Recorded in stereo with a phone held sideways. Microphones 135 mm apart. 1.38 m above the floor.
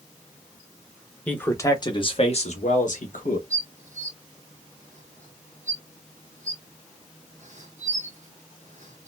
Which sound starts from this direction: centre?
A man speaking, at 1.3 s.